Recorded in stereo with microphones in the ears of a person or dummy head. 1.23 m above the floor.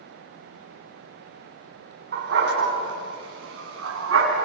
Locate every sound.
2.1 s a dog barking: 50° right (ahead or behind), 4.5 m; by 4.5 s 75° right (ahead or behind), 4.5 m